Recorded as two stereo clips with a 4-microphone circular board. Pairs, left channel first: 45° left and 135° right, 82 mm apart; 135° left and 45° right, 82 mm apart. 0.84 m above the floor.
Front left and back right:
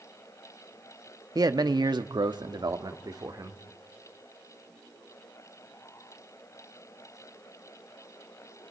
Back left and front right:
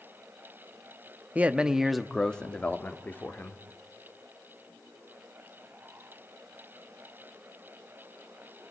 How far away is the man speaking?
About 1.1 m.